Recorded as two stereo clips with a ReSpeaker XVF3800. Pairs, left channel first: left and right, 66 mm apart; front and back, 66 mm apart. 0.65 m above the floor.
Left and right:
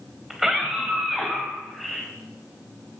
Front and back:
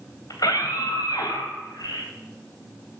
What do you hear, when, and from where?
0.3 s a scream: 5° right, 3 m; by 2.1 s straight ahead, 4 m